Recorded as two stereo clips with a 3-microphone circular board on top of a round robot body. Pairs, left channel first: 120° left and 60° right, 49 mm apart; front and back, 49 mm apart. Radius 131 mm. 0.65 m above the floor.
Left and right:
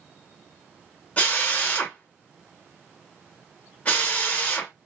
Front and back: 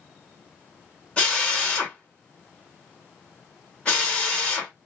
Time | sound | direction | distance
1.2 | a drill | 65° left | 1.6 m